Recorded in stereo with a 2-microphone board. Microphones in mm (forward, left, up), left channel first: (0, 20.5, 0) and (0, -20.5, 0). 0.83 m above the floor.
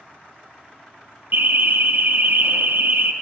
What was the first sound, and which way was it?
An alarm, 55° right (ahead or behind).